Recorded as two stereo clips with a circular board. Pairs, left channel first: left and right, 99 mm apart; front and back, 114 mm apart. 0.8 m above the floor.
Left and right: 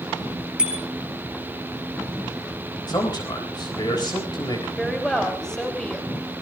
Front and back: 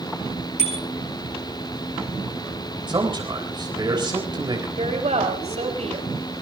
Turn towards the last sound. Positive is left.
turn(degrees=175)